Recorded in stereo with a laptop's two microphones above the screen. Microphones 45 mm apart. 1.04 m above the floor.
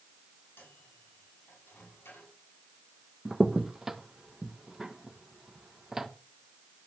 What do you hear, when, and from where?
0.6 s a microwave: 60° left (ahead or behind), 6 m
3.2 s a crack: 10° right (ahead or behind), 0.9 m